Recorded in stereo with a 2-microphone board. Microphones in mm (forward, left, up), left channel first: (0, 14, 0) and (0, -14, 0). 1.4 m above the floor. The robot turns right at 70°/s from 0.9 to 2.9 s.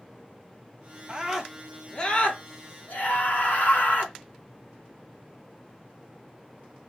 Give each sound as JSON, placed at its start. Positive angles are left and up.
{"t": 1.1, "sound": "a scream", "azimuth_deg": -30, "distance_m": 1.0}